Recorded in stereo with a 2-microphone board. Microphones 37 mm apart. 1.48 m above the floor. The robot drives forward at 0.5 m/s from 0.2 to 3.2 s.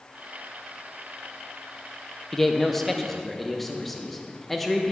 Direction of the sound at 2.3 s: 10° left (ahead or behind).